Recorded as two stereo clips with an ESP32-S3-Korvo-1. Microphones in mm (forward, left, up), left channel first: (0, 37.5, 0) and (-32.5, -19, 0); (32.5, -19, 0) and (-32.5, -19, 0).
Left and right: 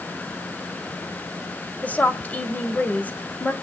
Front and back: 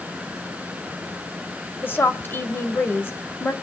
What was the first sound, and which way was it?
A woman speaking, 15° left.